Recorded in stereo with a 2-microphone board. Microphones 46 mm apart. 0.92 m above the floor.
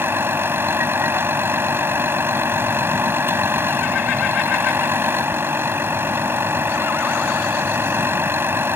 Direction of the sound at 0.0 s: 55° right (ahead or behind).